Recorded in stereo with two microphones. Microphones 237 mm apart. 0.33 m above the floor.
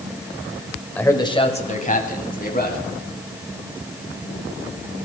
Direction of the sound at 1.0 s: 5° left (ahead or behind).